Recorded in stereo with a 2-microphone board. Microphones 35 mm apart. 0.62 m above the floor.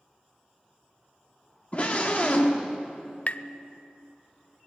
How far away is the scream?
About 1.3 m.